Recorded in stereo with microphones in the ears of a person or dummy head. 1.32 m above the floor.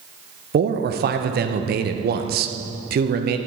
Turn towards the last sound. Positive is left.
turn(degrees=-50)  # may be behind; listen again after turning